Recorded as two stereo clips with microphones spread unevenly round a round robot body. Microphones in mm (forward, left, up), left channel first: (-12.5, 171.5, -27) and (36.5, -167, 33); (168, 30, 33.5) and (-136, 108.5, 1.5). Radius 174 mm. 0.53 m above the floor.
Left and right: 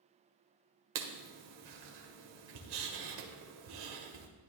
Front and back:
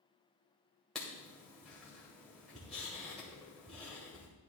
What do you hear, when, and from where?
0.9 s writing: 105° right, 1.8 m